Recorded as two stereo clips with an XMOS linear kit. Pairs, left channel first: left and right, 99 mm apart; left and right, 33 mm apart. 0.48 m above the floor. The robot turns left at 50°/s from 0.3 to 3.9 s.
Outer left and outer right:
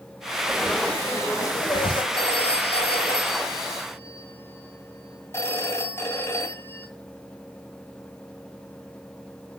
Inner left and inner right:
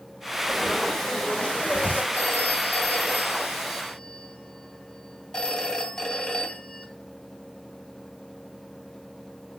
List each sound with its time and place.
0.5 s frying: 175° right, 1.9 m; by 2.0 s 105° left, 1.9 m
2.1 s a phone ringing: 115° left, 2 m; by 6.9 s 25° left, 2 m